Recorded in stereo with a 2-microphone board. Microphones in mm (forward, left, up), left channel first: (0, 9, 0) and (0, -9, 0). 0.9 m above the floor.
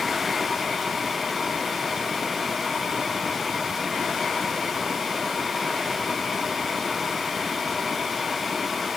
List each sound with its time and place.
Only background noise.